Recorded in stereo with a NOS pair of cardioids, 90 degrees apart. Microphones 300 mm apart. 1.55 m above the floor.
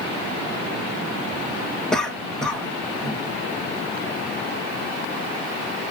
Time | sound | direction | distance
1.9 | a cough | straight ahead | 1.3 m